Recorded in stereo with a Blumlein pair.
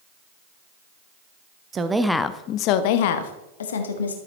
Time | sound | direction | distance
1.7 | a woman speaking | 25° right | 0.8 m